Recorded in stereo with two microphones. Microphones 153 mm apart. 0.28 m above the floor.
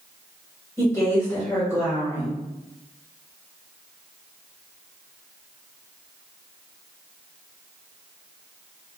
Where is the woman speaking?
15° left (ahead or behind), 1.1 m.